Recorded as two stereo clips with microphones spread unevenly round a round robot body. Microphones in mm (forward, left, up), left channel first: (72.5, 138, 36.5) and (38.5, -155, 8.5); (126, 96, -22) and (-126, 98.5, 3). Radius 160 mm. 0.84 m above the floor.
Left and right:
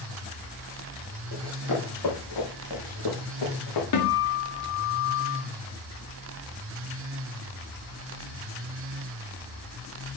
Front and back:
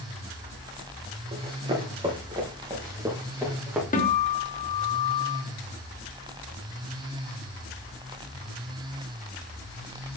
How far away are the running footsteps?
About 4 m.